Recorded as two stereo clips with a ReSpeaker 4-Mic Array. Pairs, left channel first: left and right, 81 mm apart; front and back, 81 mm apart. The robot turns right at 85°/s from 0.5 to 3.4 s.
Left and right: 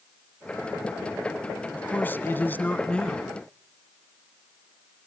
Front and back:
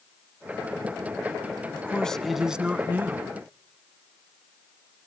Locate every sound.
1.7 s a man speaking: 40° left, 1.1 m; by 3.3 s 175° left, 1.1 m